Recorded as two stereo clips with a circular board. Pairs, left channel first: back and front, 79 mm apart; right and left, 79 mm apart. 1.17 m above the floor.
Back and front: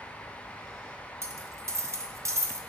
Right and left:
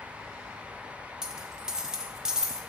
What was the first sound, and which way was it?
A dropped coin, 15° left.